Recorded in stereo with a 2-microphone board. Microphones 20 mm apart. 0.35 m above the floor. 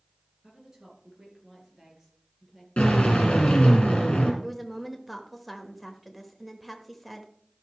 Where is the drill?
70° left (ahead or behind), 3.5 m.